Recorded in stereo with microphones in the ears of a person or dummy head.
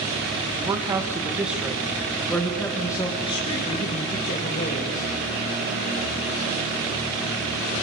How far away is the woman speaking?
About 2 m.